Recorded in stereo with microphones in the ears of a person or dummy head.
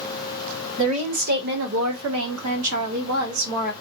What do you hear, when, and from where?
0.8 s a woman speaking: 30° right (ahead or behind), 1.0 m; by 3.7 s 80° right, 1.6 m